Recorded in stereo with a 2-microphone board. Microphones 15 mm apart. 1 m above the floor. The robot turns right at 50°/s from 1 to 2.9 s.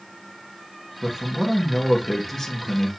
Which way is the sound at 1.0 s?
40° right.